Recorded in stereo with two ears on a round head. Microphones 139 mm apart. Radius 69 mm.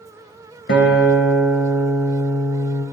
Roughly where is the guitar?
Left.